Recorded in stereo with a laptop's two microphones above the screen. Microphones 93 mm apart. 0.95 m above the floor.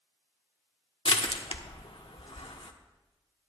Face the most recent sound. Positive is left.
turn(degrees=80)